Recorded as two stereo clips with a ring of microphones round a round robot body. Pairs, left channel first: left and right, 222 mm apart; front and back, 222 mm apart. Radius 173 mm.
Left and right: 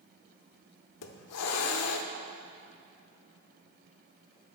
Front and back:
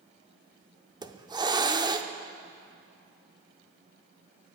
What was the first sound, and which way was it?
A hiss, 105° left.